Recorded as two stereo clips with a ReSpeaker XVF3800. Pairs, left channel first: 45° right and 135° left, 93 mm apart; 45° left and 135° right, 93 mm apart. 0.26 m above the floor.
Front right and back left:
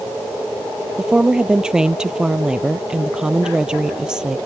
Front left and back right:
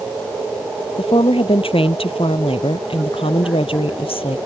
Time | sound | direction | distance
1.0 | a woman speaking | 55° left | ?